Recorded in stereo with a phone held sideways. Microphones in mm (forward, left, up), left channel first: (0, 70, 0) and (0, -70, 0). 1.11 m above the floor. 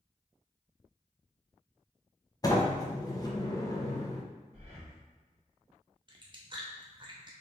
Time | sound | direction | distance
2.4 | a sliding door | 25° left (ahead or behind) | 0.7 m
4.5 | breathing | 45° right (ahead or behind) | 1.7 m
6.1 | chewing | 35° right (ahead or behind) | 0.8 m